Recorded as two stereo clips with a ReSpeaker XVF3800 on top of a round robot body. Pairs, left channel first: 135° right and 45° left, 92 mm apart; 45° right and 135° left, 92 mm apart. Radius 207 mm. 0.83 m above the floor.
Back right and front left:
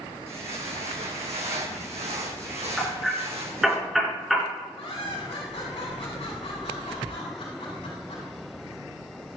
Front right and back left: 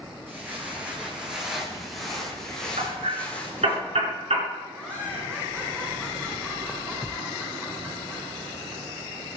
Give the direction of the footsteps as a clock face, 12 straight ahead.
10 o'clock.